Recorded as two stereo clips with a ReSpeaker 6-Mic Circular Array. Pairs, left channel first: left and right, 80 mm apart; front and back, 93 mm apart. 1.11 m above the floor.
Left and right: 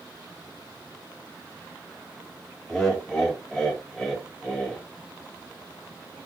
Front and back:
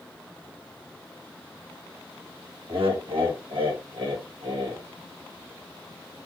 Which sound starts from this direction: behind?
Laughter, at 2.7 s.